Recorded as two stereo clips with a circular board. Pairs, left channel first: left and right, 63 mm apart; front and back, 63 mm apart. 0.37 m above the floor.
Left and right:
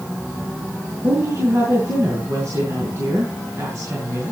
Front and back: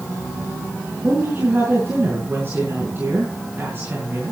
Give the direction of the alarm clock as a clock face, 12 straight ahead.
I don't hear an alarm clock.